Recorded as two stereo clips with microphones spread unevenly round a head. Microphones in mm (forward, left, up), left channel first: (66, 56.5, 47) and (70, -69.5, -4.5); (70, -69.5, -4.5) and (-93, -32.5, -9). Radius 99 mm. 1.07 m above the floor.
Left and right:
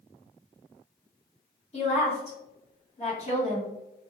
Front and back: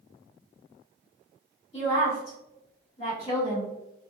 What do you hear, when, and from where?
1.7 s a woman speaking: 45° left, 1.4 m